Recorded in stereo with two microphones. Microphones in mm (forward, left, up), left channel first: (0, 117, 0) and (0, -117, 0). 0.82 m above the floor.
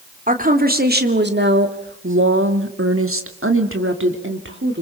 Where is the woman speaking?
35° right (ahead or behind), 2.5 m; by 4.8 s 50° right (ahead or behind), 2.5 m.